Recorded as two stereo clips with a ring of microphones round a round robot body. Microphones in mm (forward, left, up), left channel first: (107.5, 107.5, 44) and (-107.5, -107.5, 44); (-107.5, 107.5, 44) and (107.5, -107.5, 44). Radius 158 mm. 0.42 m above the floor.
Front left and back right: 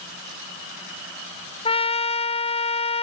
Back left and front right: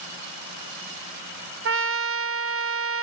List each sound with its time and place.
1.6 s a trumpet: 20° right, 1.0 m